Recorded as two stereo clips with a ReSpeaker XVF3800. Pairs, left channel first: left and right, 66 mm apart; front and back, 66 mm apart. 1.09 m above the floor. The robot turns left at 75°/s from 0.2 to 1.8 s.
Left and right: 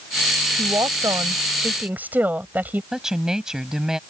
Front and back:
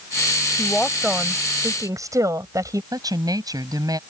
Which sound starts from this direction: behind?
A woman speaking, at 2.9 s.